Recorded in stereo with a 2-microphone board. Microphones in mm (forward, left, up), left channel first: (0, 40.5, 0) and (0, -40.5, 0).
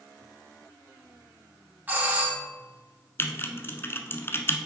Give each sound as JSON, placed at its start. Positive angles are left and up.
{"t": 1.9, "sound": "a doorbell", "side_deg": -20, "distance_m": 1.7}
{"t": 3.2, "sound": "typing on a keyboard", "side_deg": 30, "distance_m": 0.7}